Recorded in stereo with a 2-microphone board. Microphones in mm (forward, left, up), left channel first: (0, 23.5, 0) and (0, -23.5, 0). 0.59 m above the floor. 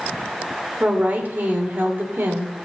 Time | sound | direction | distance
0.8 | a woman speaking | 35° right (ahead or behind) | 2 m